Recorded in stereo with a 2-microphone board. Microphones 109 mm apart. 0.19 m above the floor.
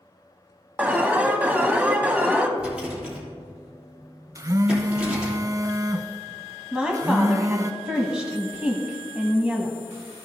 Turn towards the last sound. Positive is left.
turn(degrees=-10)  # may be behind; listen again after turning